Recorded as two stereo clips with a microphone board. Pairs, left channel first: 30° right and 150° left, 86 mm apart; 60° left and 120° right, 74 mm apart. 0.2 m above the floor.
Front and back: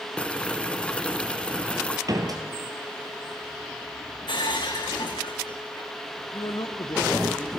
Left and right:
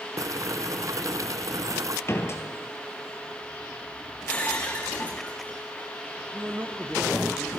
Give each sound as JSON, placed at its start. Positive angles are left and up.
{"t": 0.2, "sound": "boiling", "azimuth_deg": -105, "distance_m": 0.8}
{"t": 2.1, "sound": "a door slam", "azimuth_deg": 110, "distance_m": 3.0}
{"t": 4.3, "sound": "breaking glass", "azimuth_deg": -10, "distance_m": 4.0}
{"t": 6.3, "sound": "a man speaking", "azimuth_deg": -55, "distance_m": 2.0}